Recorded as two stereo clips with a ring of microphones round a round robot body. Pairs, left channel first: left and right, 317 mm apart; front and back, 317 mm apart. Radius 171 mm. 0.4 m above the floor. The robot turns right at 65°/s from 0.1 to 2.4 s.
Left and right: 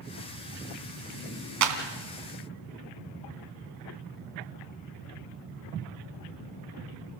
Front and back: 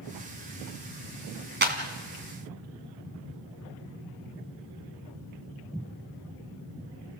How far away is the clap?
About 2.5 m.